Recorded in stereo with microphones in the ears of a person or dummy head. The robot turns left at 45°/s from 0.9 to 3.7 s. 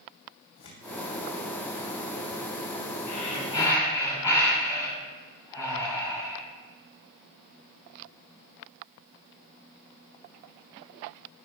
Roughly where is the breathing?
Left.